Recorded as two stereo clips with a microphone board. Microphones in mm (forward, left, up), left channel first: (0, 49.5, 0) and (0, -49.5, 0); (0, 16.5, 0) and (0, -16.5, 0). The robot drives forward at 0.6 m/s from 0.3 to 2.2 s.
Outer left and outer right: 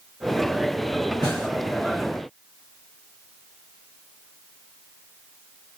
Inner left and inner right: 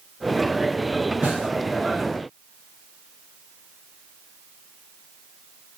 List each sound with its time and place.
1.2 s a snare drum: 45° right (ahead or behind), 1.8 m